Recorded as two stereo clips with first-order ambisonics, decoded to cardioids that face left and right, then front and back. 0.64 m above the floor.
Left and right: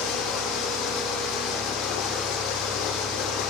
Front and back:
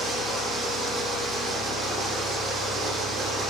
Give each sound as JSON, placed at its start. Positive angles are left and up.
{"t": 0.0, "sound": "running water", "azimuth_deg": 105, "distance_m": 6.5}